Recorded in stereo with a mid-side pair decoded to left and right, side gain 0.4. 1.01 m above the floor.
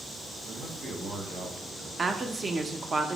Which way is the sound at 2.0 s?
35° right.